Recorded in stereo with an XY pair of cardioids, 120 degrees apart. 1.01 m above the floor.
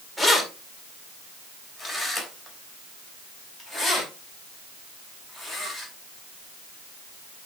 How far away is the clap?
I don't hear a clap.